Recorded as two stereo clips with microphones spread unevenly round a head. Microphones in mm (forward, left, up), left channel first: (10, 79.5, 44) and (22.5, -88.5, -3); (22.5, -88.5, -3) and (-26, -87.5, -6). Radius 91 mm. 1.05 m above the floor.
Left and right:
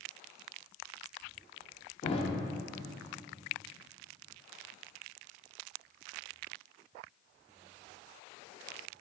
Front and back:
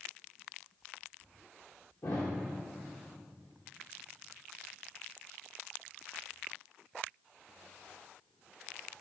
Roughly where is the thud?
Ahead left.